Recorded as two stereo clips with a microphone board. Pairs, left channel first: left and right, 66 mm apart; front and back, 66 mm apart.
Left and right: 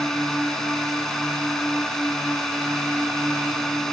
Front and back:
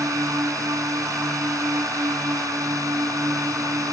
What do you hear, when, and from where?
0.0 s a drone: 170° left